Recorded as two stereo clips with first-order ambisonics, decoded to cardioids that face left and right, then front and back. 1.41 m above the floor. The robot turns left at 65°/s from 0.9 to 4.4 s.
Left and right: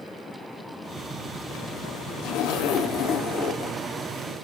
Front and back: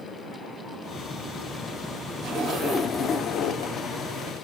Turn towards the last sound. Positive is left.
turn(degrees=-20)